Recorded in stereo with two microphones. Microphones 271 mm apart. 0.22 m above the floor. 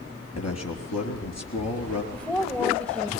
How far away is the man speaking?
About 4 m.